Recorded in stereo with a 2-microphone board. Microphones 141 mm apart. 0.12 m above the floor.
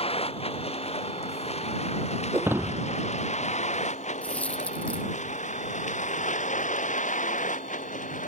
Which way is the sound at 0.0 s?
45° left (ahead or behind).